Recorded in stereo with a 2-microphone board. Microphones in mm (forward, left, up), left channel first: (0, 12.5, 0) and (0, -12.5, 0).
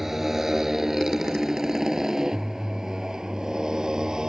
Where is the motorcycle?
10° right (ahead or behind); by 4.3 s 20° right (ahead or behind).